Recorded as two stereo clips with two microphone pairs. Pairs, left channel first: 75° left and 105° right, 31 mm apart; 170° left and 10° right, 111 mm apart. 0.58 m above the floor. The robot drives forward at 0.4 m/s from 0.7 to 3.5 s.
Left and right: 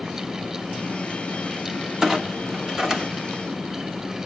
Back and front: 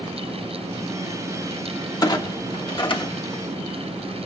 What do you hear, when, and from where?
2.0 s a clunk: 160° right, 1.2 m; by 3.4 s 170° right, 1.6 m